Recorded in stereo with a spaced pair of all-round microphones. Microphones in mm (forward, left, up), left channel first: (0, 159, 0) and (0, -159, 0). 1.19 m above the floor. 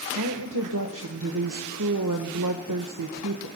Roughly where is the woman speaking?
Right.